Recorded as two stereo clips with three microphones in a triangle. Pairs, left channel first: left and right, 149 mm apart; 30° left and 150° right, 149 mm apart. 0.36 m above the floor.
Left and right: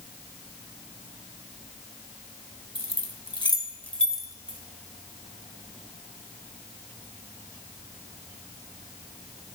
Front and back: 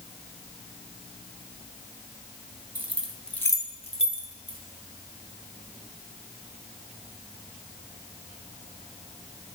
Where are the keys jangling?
140° left, 1.3 m; by 4.6 s 10° right, 1.6 m.